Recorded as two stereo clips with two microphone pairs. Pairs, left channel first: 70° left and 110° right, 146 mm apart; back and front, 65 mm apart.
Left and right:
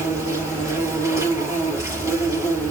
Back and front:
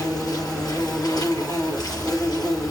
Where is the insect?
175° right, 5.5 m.